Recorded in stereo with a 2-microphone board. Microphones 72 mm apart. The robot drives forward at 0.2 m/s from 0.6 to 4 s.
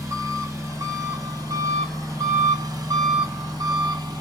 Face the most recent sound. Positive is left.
turn(degrees=-65)  # may be behind; listen again after turning